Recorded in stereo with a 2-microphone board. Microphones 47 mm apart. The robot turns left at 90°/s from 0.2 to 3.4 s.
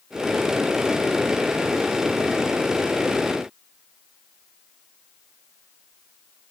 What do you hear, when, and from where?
Only background noise.